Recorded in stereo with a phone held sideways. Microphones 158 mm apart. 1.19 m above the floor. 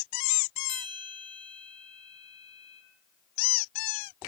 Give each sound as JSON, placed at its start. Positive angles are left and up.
{"t": 0.7, "sound": "a bell", "side_deg": -30, "distance_m": 1.1}